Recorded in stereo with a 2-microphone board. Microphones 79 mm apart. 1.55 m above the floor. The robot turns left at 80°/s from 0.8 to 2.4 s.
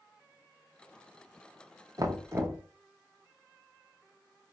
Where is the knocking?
100° right, 0.7 m; by 2.6 s 135° right, 0.7 m.